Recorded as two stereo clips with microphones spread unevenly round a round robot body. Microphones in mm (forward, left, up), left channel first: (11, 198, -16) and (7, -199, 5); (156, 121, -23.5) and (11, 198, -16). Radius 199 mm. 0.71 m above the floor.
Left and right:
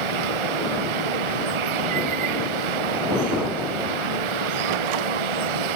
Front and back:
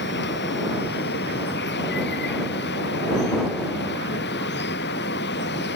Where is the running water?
80° right.